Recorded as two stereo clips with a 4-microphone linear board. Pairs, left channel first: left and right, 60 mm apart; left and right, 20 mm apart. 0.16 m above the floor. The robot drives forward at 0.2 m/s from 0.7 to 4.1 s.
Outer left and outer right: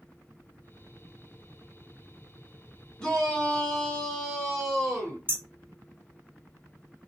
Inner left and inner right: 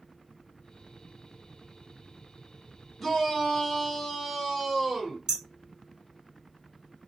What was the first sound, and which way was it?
A shout, 10° left (ahead or behind).